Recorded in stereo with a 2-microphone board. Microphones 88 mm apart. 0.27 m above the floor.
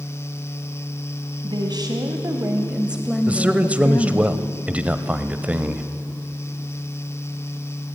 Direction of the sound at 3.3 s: 15° right (ahead or behind).